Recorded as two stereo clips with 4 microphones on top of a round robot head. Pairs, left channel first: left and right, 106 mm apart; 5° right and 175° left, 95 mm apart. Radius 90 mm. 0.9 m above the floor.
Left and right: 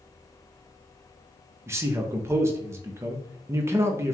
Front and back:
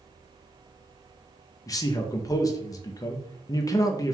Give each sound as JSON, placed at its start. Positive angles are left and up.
{"t": 1.7, "sound": "a man speaking", "azimuth_deg": -35, "distance_m": 0.7}